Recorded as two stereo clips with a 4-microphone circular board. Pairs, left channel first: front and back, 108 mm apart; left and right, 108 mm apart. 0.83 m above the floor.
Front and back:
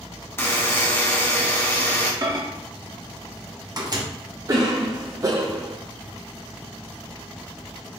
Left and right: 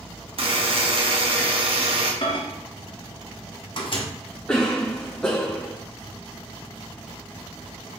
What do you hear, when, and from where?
0.4 s a buzzer: 65° right, 1.1 m
2.2 s a microwave: 130° left, 0.8 m
4.5 s a cough: 165° left, 0.6 m